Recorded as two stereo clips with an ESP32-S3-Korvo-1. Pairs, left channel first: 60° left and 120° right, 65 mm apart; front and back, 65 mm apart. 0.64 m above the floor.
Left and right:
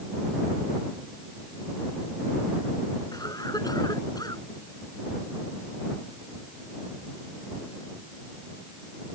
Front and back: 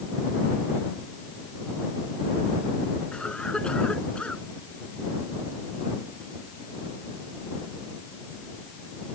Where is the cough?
75° left.